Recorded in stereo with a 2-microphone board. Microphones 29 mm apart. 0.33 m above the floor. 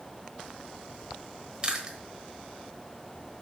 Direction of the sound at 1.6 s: 30° right (ahead or behind).